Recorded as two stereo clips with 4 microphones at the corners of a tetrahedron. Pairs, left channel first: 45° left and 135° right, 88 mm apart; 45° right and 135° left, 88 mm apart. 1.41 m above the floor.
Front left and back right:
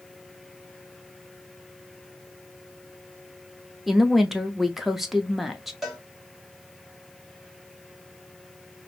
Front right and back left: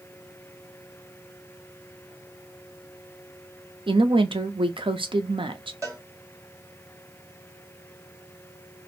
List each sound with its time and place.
3.9 s a woman speaking: 140° left, 0.5 m
5.8 s a cowbell: 135° left, 0.9 m